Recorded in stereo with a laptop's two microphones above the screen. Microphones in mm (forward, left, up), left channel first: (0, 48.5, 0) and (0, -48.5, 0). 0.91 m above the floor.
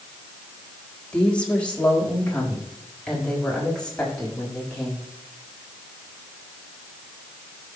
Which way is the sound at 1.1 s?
15° left (ahead or behind).